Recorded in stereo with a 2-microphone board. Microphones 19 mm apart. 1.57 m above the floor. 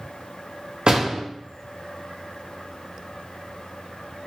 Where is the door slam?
60° right (ahead or behind), 1.2 m.